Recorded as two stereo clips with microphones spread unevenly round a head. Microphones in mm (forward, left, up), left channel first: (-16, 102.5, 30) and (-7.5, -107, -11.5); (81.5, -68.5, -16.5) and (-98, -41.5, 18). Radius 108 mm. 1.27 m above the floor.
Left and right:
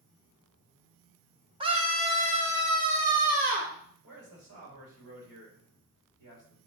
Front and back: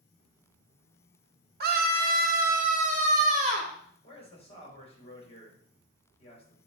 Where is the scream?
155° right, 1.5 m; by 3.7 s 135° right, 3 m.